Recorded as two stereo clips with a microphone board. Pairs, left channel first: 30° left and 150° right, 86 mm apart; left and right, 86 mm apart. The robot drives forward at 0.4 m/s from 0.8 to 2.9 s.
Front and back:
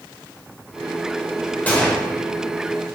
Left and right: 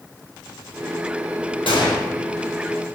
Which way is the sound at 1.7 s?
105° left.